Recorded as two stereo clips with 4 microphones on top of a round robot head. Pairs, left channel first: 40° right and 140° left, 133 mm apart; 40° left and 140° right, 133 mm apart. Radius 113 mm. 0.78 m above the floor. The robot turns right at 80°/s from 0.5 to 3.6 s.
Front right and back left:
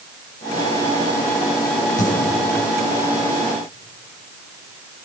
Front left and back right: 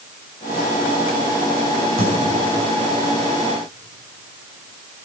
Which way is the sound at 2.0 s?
15° right.